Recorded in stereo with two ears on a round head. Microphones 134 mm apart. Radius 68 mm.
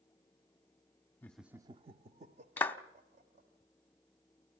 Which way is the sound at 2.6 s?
10° left (ahead or behind).